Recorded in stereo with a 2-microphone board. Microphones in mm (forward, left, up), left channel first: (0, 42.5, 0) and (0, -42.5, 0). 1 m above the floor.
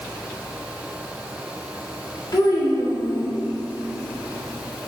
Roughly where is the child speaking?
Left.